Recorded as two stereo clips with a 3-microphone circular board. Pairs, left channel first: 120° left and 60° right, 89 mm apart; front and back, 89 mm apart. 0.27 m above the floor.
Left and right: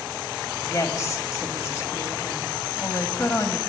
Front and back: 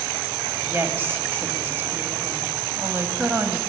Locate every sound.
0.6 s a woman speaking: 135° left, 1.7 m